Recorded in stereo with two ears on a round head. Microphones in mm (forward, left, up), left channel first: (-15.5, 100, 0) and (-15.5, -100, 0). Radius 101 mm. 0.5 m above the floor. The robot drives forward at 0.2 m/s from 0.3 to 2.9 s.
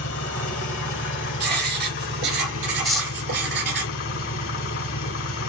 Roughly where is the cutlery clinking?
Centre.